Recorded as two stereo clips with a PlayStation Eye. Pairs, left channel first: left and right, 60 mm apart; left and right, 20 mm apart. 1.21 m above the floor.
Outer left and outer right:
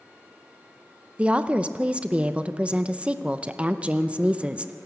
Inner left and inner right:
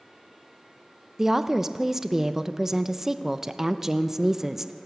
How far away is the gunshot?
No gunshot in this recording.